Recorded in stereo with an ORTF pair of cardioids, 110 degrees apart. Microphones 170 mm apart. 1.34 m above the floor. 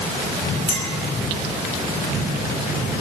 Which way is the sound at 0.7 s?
35° left.